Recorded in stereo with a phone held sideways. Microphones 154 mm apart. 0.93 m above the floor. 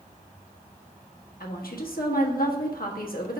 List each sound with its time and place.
1.4 s a woman speaking: 75° left (ahead or behind), 1.3 m